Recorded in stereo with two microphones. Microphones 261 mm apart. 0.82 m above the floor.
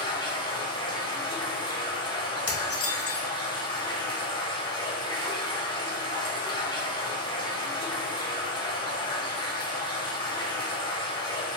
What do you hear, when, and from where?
0.0 s running water: 20° left (ahead or behind), 0.7 m
2.5 s dishes clattering: 60° left (ahead or behind), 0.5 m